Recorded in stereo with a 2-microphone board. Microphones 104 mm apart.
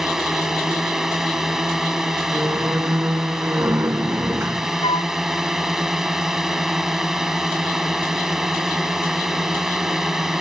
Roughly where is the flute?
Left.